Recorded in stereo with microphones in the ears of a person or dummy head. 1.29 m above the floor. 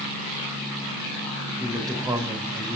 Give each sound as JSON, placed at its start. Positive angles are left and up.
{"t": 1.6, "sound": "a man speaking", "side_deg": -20, "distance_m": 4.5}